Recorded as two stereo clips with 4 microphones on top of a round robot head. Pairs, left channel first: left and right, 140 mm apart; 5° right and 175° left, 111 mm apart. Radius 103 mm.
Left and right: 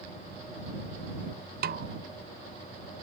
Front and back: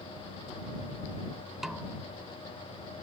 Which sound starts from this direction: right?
A snare drum, at 1.6 s.